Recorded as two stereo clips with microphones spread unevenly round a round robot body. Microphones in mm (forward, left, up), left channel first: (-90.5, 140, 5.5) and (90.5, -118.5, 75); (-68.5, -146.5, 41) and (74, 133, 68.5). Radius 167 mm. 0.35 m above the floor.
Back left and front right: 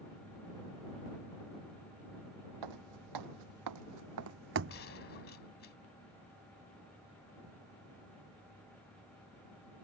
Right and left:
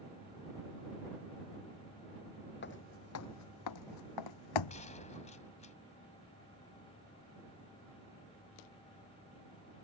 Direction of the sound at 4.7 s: 175° left.